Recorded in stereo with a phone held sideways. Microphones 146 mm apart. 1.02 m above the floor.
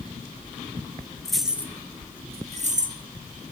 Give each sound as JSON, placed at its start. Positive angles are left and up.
{"t": 1.2, "sound": "keys jangling", "side_deg": 0, "distance_m": 1.2}